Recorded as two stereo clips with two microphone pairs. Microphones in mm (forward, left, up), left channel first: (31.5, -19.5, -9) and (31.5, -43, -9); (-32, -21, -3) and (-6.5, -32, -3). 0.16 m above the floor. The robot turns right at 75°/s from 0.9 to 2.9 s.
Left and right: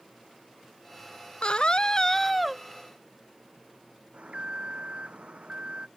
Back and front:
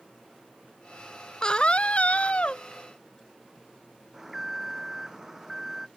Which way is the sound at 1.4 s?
100° left.